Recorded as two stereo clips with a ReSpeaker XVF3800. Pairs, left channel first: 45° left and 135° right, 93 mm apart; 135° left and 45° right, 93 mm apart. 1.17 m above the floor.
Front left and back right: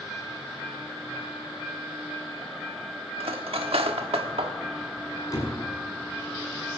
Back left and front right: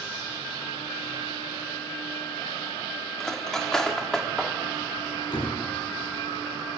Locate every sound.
3.2 s cutlery clinking: 140° right, 1.3 m
5.3 s a door slam: 95° left, 7 m